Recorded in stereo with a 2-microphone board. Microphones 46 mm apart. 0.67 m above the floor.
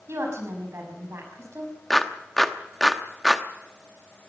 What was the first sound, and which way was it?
A woman speaking, 80° right.